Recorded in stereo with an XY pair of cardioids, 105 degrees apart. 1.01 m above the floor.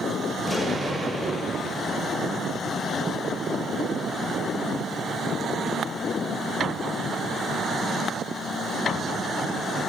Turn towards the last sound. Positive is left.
turn(degrees=-10)